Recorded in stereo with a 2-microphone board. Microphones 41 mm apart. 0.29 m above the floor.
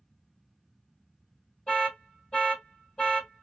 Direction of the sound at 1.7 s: 20° left (ahead or behind).